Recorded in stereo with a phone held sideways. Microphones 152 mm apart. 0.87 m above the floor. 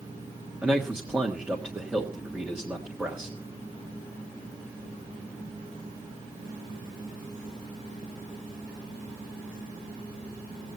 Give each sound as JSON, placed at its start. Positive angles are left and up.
{"t": 0.6, "sound": "a man speaking", "side_deg": -10, "distance_m": 1.5}